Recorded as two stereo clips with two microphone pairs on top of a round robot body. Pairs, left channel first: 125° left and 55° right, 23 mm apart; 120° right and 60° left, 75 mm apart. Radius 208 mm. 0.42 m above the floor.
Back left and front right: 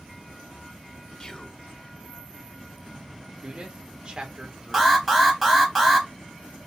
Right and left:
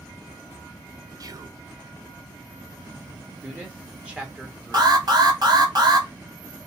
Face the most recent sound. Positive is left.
turn(degrees=35)